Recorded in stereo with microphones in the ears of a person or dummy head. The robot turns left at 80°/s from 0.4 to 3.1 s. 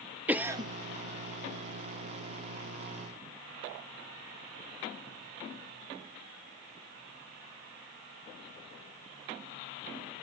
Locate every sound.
0.3 s a cough: 10° right (ahead or behind), 0.9 m; by 0.7 s 35° right (ahead or behind), 0.9 m